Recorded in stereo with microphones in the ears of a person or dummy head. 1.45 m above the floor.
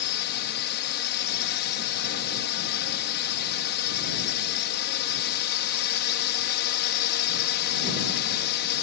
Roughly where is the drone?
Left.